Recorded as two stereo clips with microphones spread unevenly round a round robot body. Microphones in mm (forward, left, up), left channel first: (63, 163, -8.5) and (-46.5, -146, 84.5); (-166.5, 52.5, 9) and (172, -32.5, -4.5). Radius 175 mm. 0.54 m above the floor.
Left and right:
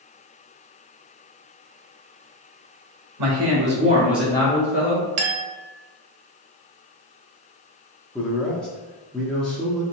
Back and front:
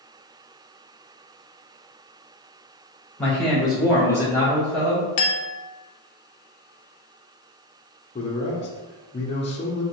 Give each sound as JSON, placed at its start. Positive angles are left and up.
{"t": 3.2, "sound": "a man speaking", "azimuth_deg": -110, "distance_m": 1.4}
{"t": 5.2, "sound": "a clink", "azimuth_deg": -160, "distance_m": 0.7}
{"t": 8.2, "sound": "a man speaking", "azimuth_deg": 115, "distance_m": 0.6}